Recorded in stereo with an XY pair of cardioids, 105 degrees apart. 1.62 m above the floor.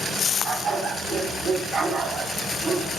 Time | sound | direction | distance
0.4 | a dog barking | 55° right | 4.5 m